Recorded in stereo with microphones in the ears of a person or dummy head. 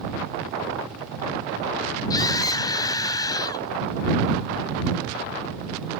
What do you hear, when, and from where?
2.1 s a scream: 25° left (ahead or behind)